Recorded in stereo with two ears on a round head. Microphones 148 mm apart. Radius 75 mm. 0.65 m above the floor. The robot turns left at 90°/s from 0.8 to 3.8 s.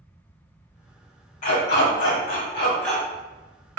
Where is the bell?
I don't hear a bell.